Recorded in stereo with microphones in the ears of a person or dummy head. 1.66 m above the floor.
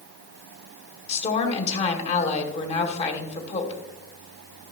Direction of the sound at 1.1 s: 35° left (ahead or behind).